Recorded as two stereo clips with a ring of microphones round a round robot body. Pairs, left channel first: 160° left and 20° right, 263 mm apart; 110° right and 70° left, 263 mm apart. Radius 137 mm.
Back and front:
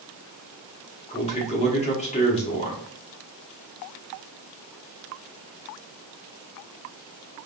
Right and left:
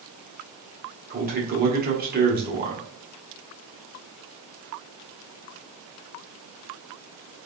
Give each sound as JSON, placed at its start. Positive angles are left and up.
{"t": 1.1, "sound": "a man speaking", "azimuth_deg": 105, "distance_m": 1.2}